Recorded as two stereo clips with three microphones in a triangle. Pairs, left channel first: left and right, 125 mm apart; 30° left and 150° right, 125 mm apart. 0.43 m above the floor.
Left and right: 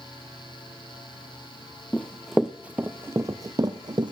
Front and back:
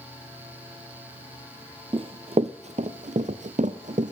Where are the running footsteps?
170° left, 1.0 m; by 4.1 s 140° right, 1.7 m.